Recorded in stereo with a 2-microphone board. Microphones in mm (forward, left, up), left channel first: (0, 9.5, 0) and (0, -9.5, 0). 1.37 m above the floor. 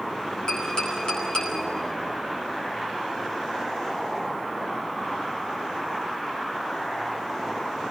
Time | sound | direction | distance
0.5 | tapping | 55° left (ahead or behind) | 8.5 m